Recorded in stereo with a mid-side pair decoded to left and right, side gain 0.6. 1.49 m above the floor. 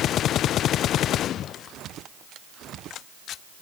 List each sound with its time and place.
Only background noise.